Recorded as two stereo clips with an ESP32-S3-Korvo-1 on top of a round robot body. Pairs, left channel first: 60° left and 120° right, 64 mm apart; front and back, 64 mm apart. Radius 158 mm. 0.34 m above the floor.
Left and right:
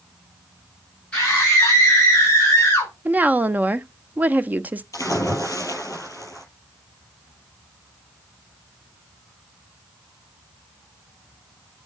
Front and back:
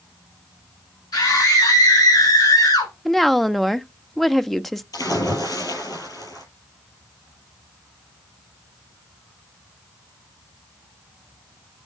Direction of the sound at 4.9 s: 25° left.